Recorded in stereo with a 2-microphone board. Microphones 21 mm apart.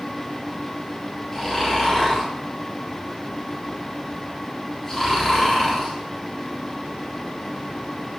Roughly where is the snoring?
Centre.